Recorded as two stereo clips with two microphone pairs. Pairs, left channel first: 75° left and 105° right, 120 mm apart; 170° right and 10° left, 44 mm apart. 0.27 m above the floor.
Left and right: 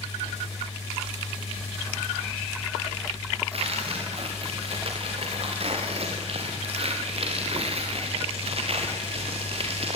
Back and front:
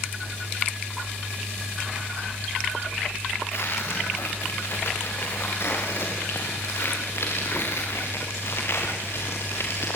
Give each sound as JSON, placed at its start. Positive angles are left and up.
{"t": 3.5, "sound": "tearing paper", "azimuth_deg": -140, "distance_m": 6.5}